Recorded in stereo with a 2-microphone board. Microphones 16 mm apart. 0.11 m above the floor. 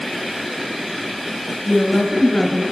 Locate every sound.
1.6 s a woman speaking: 40° left (ahead or behind), 1.6 m